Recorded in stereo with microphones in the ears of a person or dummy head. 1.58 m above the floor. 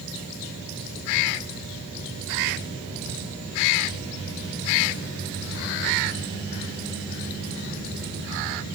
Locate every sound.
Only background noise.